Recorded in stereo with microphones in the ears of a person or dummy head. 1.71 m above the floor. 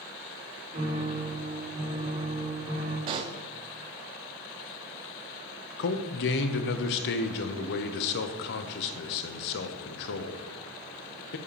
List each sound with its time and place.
0.7 s a piano: 30° right (ahead or behind), 2 m
3.1 s a pop: 30° right (ahead or behind), 0.6 m
5.8 s a man speaking: 65° left (ahead or behind), 0.8 m